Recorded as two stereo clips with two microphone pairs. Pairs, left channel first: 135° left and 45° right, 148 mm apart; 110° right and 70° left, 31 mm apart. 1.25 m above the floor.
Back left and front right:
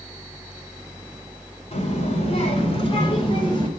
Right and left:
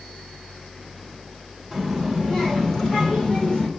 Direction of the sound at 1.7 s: 165° left.